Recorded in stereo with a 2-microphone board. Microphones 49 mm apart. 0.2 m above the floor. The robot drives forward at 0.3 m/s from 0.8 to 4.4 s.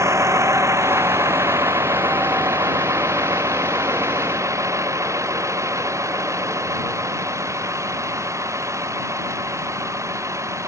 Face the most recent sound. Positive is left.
turn(degrees=-75)  # may be behind; listen again after turning